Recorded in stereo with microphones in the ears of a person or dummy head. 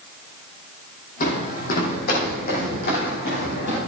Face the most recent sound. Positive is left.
turn(degrees=55)  # may be behind; listen again after turning